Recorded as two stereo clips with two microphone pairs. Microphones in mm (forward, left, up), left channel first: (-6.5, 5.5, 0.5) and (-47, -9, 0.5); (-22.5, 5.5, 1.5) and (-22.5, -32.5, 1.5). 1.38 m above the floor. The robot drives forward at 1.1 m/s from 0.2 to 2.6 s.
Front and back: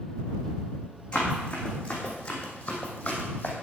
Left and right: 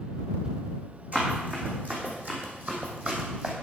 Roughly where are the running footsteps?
Ahead right.